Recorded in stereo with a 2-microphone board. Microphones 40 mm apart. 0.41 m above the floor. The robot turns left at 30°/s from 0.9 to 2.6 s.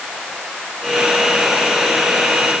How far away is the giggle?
I don't hear a giggle.